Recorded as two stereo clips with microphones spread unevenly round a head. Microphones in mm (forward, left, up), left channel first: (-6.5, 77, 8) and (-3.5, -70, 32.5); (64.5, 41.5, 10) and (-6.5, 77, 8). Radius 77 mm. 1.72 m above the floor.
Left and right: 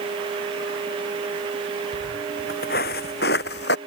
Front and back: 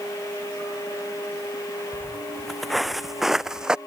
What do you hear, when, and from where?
1.9 s footsteps: 60° left; by 3.8 s 75° left